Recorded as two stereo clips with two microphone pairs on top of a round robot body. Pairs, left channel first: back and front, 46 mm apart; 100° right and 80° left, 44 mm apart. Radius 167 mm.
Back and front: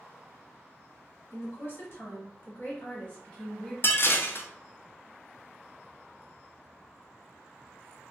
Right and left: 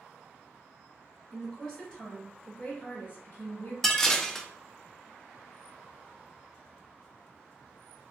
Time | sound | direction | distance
1.3 | a woman speaking | straight behind | 1.9 m
3.8 | dishes clattering | 175° left | 0.5 m